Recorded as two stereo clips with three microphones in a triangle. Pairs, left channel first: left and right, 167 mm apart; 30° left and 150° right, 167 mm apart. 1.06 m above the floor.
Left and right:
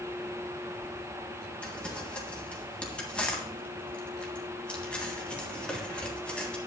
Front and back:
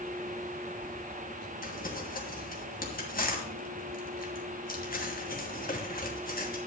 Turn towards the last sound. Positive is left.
turn(degrees=10)